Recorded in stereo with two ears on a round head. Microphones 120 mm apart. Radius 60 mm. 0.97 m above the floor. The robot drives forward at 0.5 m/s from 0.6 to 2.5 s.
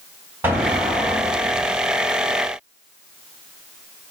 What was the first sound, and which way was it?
An explosion, 15° right (ahead or behind).